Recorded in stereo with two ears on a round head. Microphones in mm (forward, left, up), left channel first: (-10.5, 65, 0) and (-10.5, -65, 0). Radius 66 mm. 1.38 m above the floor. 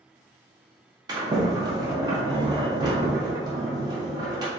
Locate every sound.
1.1 s a sliding door: 30° right (ahead or behind), 0.6 m